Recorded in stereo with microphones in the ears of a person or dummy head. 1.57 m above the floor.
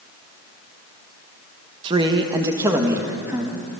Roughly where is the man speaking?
Right.